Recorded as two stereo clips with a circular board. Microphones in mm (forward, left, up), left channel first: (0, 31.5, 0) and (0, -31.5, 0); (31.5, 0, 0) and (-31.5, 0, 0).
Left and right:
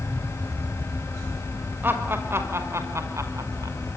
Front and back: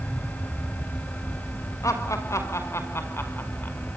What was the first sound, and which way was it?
Laughter, 35° right.